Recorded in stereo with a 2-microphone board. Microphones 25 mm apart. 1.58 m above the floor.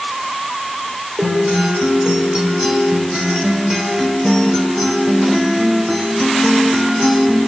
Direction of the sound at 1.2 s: 30° right (ahead or behind).